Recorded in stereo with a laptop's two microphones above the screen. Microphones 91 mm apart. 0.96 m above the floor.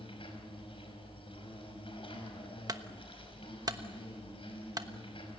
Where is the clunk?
45° right (ahead or behind), 1.1 m.